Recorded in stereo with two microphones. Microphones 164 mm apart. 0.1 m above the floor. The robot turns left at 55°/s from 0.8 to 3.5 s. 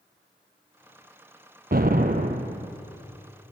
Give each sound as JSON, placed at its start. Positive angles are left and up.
{"t": 1.7, "sound": "an explosion", "azimuth_deg": -90, "distance_m": 0.7}